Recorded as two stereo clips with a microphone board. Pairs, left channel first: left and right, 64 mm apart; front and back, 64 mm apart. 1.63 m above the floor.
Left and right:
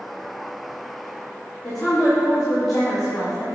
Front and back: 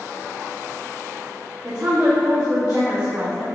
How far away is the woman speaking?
About 2.5 m.